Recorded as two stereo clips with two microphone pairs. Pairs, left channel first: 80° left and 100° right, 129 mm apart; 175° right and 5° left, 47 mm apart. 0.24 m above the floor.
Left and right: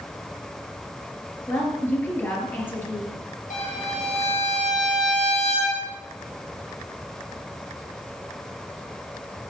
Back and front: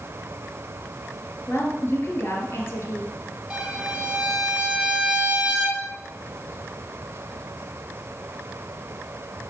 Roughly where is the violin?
Left.